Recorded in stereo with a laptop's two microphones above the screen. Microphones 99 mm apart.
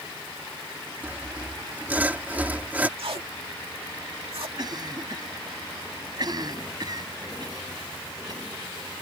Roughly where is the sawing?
Centre.